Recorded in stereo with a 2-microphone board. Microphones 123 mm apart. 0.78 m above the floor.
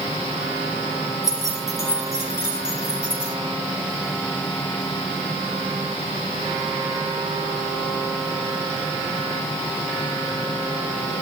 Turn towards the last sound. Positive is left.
turn(degrees=20)  # may be behind; listen again after turning